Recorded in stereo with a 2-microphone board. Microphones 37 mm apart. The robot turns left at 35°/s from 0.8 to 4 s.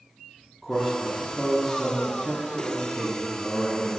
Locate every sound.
0.6 s a man speaking: 175° left, 1.1 m; by 4.0 s 60° left, 1.1 m